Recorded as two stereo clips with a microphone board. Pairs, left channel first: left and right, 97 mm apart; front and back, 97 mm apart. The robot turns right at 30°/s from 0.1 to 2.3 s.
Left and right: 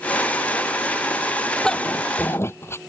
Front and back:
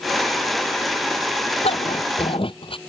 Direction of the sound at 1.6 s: 5° left.